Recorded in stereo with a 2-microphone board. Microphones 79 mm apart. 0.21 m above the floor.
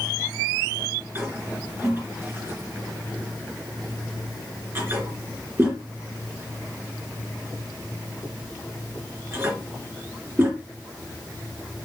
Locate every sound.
1.1 s a toilet flushing: 30° right (ahead or behind), 4 m